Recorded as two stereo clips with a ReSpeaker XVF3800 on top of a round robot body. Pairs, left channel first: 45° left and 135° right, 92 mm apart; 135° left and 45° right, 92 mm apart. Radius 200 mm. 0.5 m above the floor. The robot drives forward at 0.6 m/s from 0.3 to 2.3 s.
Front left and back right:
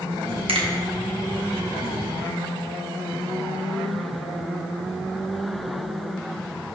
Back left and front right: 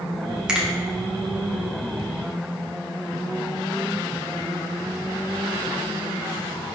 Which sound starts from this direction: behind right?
A finger snap, at 0.5 s.